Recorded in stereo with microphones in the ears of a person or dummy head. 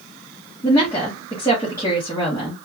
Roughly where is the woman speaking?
Centre.